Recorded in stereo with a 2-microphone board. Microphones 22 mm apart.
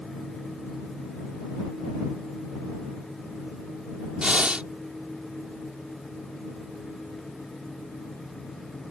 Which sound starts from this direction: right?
Breathing, at 4.2 s.